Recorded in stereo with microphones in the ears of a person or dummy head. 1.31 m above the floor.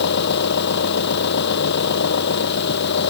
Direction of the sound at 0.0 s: 60° left (ahead or behind).